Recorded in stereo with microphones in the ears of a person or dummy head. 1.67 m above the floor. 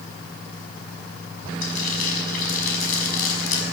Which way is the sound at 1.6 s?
50° left (ahead or behind).